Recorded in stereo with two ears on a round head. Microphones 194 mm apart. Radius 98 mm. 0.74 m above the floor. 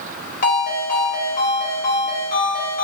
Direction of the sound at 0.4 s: 35° left (ahead or behind).